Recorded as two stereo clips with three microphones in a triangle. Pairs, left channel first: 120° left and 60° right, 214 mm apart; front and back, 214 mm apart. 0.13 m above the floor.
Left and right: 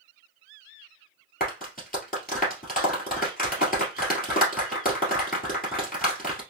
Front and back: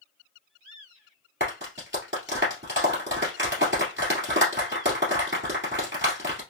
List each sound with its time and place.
1.4 s a clap: 165° left, 2 m